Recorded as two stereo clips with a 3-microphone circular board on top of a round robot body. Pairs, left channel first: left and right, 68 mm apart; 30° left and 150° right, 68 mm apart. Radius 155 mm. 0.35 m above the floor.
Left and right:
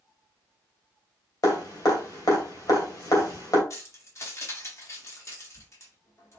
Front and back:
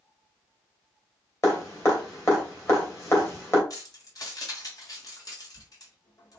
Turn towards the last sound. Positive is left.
turn(degrees=50)